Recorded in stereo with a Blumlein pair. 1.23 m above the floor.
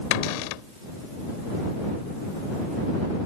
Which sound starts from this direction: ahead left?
A cupboard door, at 0.1 s.